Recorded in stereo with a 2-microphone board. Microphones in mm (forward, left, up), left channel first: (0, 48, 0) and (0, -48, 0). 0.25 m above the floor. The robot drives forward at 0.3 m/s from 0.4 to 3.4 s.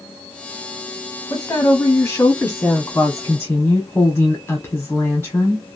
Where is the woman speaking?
35° left (ahead or behind), 1.1 m; by 5.6 s 25° left (ahead or behind), 1.4 m.